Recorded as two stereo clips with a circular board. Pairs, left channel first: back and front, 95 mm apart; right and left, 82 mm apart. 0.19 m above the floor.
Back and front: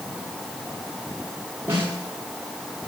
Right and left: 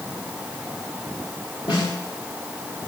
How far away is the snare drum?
About 8.5 m.